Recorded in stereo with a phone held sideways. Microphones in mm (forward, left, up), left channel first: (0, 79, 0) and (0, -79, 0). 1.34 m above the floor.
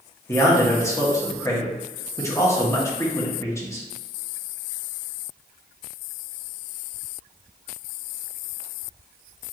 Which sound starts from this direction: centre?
A man speaking, at 0.3 s.